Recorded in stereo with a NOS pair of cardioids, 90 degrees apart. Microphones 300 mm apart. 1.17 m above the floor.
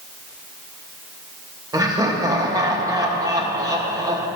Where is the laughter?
15° right, 1.7 m.